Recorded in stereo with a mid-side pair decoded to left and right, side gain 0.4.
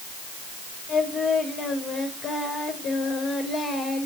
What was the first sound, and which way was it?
Singing, 65° left.